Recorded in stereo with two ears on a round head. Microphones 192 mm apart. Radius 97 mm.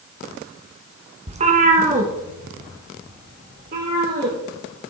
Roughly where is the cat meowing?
Right.